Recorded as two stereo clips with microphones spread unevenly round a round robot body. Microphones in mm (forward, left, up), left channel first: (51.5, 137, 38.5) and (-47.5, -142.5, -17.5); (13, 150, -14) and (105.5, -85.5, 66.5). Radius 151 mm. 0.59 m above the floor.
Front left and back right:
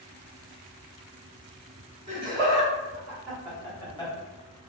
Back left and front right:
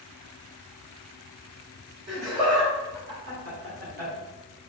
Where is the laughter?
50° right, 2.0 m; by 4.1 s 10° right, 1.6 m.